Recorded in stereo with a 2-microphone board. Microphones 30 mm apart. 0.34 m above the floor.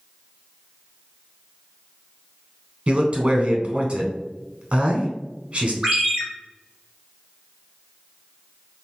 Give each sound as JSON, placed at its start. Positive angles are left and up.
{"t": 2.9, "sound": "a man speaking", "side_deg": -35, "distance_m": 0.9}
{"t": 5.8, "sound": "a ringtone", "side_deg": -20, "distance_m": 1.7}